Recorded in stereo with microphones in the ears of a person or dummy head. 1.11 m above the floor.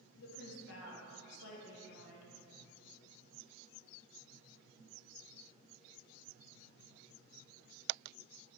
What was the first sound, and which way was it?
A woman speaking, 70° left (ahead or behind).